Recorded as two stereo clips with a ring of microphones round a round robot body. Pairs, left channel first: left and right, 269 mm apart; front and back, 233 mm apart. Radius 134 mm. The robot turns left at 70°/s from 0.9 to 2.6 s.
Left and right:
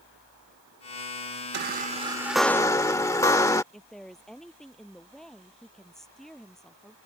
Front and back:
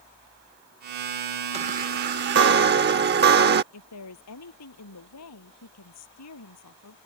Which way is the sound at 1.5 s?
120° right.